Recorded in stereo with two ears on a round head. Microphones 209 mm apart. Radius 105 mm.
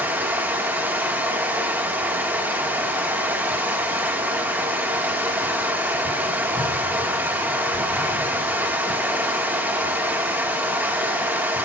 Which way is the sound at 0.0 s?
10° right (ahead or behind).